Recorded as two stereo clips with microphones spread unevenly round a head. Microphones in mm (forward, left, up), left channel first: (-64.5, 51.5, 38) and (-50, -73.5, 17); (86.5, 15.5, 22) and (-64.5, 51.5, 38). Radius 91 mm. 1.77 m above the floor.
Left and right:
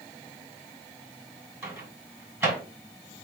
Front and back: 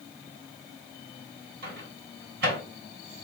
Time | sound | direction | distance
1.6 | a microwave | 155° right | 1.9 m